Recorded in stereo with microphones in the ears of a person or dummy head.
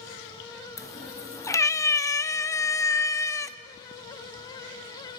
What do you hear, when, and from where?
0.8 s a cat meowing: 15° left (ahead or behind), 0.8 m